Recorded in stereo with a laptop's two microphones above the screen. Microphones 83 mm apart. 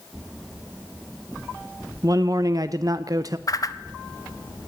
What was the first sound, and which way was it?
A man speaking, 45° right (ahead or behind).